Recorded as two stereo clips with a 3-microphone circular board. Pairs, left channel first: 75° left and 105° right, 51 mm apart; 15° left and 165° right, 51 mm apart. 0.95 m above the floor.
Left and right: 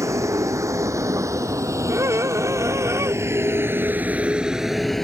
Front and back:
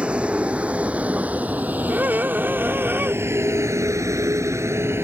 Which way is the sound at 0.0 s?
100° right.